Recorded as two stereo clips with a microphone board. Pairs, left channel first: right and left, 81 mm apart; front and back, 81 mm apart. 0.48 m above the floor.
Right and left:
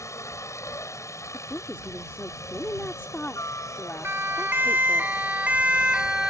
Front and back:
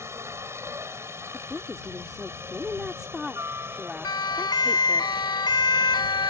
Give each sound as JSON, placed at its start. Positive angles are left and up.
{"t": 0.0, "sound": "a helicopter", "azimuth_deg": -130}
{"t": 1.3, "sound": "a woman speaking", "azimuth_deg": -105}
{"t": 4.0, "sound": "a siren", "azimuth_deg": 30}